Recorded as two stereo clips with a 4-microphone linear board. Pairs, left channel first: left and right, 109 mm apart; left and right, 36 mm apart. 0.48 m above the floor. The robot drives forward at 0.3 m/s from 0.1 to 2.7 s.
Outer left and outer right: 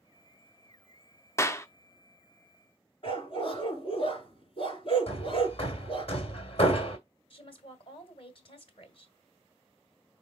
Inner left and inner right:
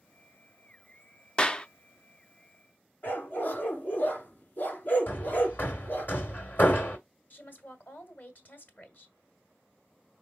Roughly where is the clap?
Left.